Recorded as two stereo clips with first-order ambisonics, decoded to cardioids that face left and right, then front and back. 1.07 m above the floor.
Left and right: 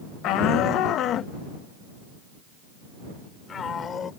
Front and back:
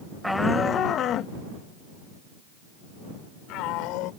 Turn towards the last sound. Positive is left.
turn(degrees=25)